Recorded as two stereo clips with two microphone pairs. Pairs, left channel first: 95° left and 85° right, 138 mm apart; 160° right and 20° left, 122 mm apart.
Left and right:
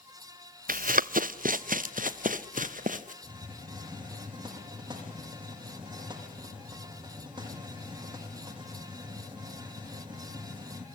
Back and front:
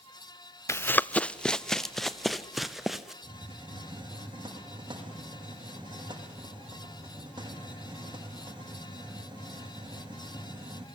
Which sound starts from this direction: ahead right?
A hiss, at 3.2 s.